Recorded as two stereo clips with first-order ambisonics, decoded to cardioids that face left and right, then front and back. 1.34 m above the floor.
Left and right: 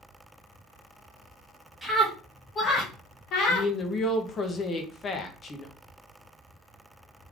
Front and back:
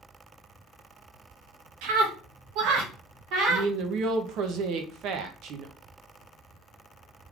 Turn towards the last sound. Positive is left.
turn(degrees=155)